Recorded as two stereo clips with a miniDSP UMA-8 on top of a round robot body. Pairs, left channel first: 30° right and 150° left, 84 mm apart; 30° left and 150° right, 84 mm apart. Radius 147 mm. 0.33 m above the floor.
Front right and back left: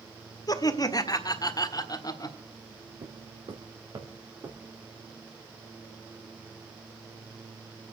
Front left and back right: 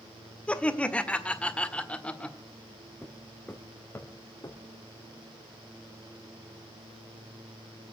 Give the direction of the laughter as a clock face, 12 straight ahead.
1 o'clock.